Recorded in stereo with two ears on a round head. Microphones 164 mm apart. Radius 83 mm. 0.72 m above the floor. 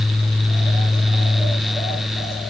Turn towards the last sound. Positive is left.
No sound to turn to.